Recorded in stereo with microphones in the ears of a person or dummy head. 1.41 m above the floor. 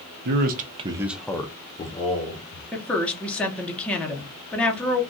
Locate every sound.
0.2 s a man speaking: 55° right (ahead or behind), 0.7 m; by 2.6 s 45° left (ahead or behind), 1.2 m
2.7 s a woman speaking: 10° left (ahead or behind), 0.9 m